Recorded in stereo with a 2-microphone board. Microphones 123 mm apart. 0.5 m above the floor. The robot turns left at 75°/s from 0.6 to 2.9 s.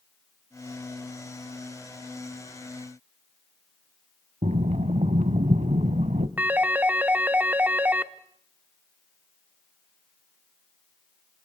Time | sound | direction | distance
4.4 | breathing | 85° right | 1.1 m
6.4 | a phone ringing | 15° right (ahead or behind) | 0.9 m